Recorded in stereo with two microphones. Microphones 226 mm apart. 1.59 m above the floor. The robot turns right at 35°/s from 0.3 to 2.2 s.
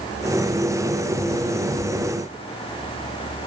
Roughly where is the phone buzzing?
I don't hear a phone buzzing.